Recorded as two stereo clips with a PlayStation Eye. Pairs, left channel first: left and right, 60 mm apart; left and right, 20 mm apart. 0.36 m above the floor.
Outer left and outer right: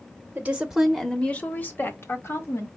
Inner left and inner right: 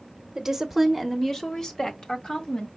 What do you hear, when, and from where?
0.3 s a woman speaking: 25° right (ahead or behind), 1.0 m; by 2.7 s 55° left (ahead or behind), 2.0 m